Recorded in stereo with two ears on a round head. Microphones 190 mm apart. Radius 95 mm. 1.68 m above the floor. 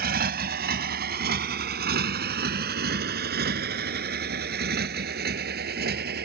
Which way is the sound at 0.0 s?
50° right (ahead or behind).